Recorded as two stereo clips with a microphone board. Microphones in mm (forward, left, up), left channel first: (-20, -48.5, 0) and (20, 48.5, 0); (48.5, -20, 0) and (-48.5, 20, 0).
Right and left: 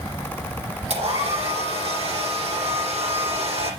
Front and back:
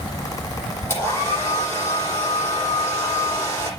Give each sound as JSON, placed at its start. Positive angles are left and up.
{"t": 0.9, "sound": "a hair dryer", "azimuth_deg": 45, "distance_m": 8.5}